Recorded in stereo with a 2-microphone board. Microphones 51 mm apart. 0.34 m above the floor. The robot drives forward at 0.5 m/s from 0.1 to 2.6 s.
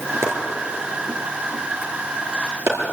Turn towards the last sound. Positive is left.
turn(degrees=-50)  # may be behind; listen again after turning